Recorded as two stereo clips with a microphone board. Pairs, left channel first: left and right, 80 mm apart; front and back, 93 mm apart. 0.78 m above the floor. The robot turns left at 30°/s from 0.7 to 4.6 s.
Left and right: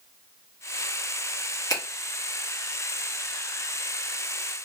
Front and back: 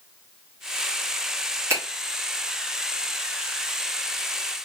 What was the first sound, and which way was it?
A finger snap, 125° left.